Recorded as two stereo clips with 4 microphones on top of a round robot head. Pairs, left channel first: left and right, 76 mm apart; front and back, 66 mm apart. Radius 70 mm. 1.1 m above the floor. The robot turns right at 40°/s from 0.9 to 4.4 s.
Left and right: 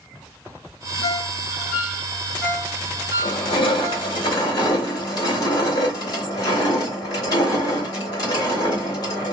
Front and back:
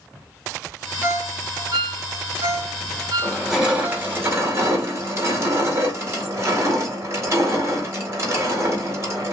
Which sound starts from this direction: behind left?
A ringtone, at 1.0 s.